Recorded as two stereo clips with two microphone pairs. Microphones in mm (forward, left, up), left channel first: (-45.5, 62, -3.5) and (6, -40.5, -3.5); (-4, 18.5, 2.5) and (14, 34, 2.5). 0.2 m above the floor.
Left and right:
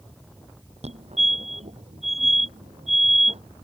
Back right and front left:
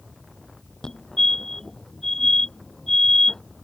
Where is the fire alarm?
80° right.